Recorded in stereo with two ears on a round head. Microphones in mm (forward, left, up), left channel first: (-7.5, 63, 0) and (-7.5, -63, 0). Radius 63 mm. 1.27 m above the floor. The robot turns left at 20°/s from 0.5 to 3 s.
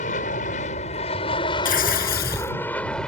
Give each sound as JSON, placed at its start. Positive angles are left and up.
{"t": 0.0, "sound": "an aircraft", "azimuth_deg": 55}
{"t": 1.6, "sound": "tearing paper", "side_deg": 65}